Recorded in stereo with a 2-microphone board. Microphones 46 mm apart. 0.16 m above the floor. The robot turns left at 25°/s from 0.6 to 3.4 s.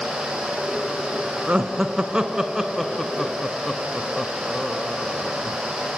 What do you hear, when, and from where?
1.5 s laughter: 25° right (ahead or behind), 1.5 m; by 5.6 s 5° left (ahead or behind), 1.5 m